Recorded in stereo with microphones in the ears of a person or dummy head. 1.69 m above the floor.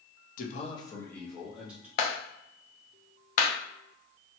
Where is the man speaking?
55° left (ahead or behind), 0.7 m; by 1.9 s 10° right (ahead or behind), 1.3 m.